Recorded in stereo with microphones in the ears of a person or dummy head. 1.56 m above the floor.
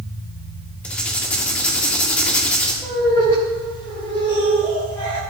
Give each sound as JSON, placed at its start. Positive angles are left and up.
{"t": 0.8, "sound": "writing", "side_deg": 10, "distance_m": 1.7}
{"t": 2.8, "sound": "laughter", "side_deg": 15, "distance_m": 4.0}